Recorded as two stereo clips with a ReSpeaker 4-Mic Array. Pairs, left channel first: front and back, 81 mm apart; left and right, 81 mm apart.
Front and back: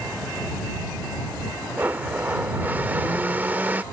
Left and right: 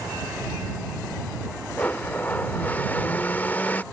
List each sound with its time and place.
1.8 s a blender: 135° left